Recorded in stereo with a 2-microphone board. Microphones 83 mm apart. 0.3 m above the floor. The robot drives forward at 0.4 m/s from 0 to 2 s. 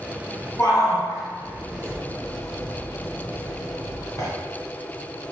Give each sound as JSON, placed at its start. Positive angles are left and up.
{"t": 0.6, "sound": "a shout", "side_deg": 40, "distance_m": 1.5}